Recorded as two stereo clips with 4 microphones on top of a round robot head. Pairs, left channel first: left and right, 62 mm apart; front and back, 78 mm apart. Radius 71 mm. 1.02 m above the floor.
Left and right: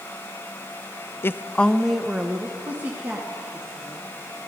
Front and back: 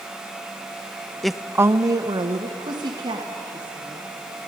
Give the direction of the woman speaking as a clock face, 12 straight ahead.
9 o'clock.